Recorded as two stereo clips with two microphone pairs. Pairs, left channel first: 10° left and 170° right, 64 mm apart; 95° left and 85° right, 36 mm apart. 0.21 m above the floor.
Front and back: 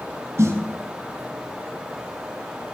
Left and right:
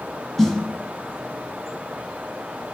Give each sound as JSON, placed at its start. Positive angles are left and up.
{"t": 0.4, "sound": "a snare drum", "azimuth_deg": 175, "distance_m": 0.9}